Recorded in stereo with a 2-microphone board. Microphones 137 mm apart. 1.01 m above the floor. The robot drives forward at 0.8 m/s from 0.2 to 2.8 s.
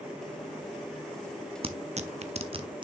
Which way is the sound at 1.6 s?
45° right (ahead or behind).